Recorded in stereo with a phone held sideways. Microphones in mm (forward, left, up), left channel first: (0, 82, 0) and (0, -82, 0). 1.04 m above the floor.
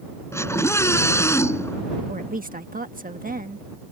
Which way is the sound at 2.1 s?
60° right (ahead or behind).